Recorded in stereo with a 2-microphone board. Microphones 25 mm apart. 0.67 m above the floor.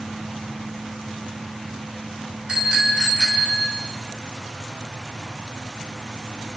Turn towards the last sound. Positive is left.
turn(degrees=-40)  # may be behind; listen again after turning